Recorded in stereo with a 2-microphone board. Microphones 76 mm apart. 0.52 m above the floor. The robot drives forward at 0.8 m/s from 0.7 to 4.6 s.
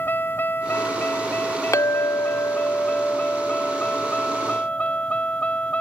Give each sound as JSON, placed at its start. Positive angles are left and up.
{"t": 0.0, "sound": "a vehicle", "side_deg": 25}
{"t": 1.7, "sound": "a clink", "side_deg": 45}